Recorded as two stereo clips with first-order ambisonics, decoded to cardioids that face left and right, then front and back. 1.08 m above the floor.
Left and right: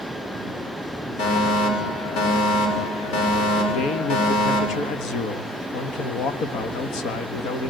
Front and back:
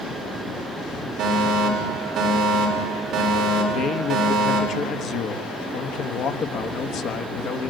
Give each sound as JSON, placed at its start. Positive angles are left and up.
{"t": 1.2, "sound": "a fire alarm", "azimuth_deg": 120, "distance_m": 6.0}
{"t": 3.7, "sound": "a man speaking", "azimuth_deg": 50, "distance_m": 1.4}